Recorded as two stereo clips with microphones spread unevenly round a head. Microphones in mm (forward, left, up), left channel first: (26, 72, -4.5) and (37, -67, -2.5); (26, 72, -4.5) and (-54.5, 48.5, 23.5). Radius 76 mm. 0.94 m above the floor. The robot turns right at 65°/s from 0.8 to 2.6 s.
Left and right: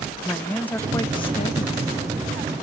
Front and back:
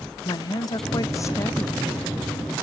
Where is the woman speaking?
20° left, 0.6 m; by 1.8 s 85° left, 0.6 m.